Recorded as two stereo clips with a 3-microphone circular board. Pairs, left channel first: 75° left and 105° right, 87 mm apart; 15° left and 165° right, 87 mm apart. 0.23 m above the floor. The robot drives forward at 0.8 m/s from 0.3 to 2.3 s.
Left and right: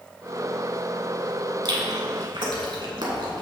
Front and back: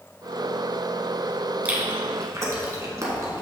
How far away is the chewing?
About 1.2 m.